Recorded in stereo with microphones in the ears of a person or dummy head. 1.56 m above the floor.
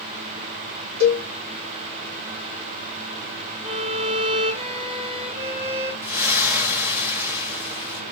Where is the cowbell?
60° right (ahead or behind), 2 m.